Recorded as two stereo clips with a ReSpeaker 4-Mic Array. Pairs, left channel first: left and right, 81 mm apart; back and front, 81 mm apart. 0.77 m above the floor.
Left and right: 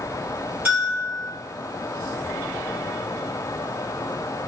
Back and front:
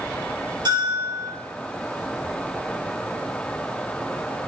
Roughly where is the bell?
Ahead right.